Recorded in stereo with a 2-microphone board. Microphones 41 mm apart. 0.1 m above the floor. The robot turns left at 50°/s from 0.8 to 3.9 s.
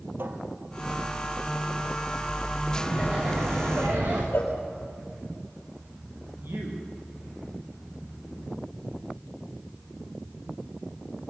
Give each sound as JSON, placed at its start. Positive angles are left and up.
{"t": 0.2, "sound": "a cupboard door", "side_deg": -60, "distance_m": 3.0}
{"t": 2.7, "sound": "laughter", "azimuth_deg": 5, "distance_m": 8.5}
{"t": 4.3, "sound": "a cowbell", "side_deg": 65, "distance_m": 5.0}
{"t": 6.4, "sound": "a man speaking", "side_deg": -65, "distance_m": 8.0}